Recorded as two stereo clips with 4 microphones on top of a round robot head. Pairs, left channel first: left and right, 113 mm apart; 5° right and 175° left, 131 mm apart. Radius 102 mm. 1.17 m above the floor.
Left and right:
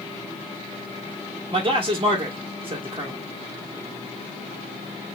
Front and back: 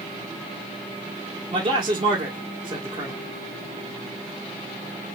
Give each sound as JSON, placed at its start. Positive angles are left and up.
{"t": 1.5, "sound": "a man speaking", "azimuth_deg": -135, "distance_m": 1.4}